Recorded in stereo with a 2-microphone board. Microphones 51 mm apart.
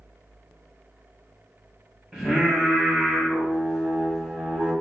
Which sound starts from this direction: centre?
Singing, at 2.1 s.